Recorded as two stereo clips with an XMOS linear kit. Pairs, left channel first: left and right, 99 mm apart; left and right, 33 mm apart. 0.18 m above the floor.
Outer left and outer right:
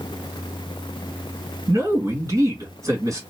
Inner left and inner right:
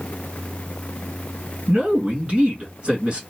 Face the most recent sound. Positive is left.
turn(degrees=-35)  # may be behind; listen again after turning